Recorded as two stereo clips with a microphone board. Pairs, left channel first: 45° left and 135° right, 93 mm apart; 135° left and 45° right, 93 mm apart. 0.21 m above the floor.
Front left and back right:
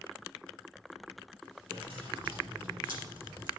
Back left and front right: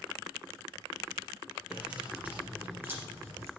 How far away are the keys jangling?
About 4 m.